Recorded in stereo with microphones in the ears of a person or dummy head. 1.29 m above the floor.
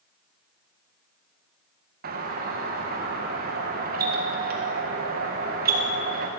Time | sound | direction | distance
2.0 | a doorbell | 50° right (ahead or behind) | 1.7 m